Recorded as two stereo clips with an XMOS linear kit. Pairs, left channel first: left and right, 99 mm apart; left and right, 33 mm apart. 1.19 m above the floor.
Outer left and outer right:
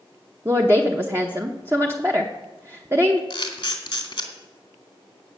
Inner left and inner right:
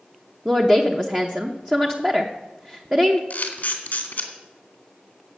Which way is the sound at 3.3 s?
55° left (ahead or behind).